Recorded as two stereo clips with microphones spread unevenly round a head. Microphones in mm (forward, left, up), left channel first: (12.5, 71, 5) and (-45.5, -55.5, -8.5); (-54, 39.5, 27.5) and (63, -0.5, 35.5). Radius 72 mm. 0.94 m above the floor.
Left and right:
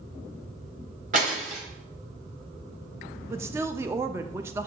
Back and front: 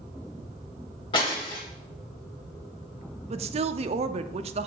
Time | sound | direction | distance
1.1 | breaking glass | 145° right | 2.0 m
3.3 | a woman speaking | 50° right | 0.5 m